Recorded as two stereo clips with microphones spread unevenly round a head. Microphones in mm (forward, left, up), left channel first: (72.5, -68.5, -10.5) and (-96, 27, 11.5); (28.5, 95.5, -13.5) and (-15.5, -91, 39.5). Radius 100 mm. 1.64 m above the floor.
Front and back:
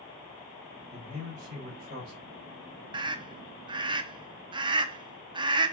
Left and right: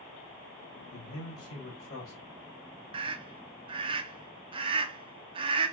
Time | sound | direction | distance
0.9 | a man speaking | 95° left | 2.5 m
2.9 | a scream | 150° right | 0.6 m